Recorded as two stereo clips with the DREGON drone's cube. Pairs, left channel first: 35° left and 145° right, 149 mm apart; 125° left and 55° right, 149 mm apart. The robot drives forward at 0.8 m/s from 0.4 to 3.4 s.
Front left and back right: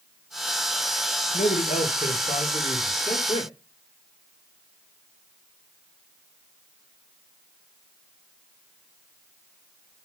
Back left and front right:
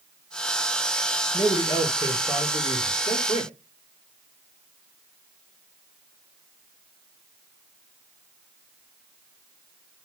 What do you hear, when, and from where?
1.3 s a man speaking: 55° left, 3.5 m; by 3.5 s 85° left, 3 m